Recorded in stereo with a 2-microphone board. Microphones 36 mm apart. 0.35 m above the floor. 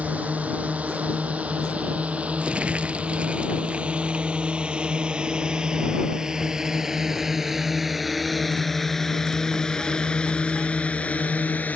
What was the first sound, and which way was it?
A drone, 45° right (ahead or behind).